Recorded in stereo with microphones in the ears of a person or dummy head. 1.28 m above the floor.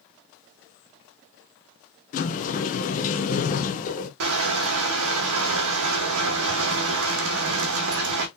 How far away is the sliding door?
About 0.9 m.